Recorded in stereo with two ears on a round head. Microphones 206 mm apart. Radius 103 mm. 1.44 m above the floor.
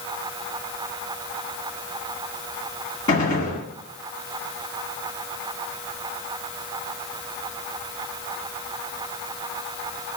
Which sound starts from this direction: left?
A gunshot, at 3.1 s.